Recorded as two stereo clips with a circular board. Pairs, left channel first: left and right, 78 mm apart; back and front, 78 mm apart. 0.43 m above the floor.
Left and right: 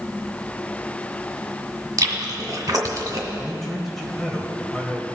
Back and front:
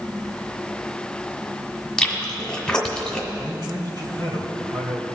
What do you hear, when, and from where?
2.0 s chewing: 100° right, 1.8 m
3.4 s a man speaking: 5° left, 2.5 m